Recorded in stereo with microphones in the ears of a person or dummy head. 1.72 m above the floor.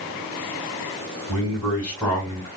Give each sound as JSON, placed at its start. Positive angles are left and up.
{"t": 1.3, "sound": "a man speaking", "side_deg": 15, "distance_m": 2.0}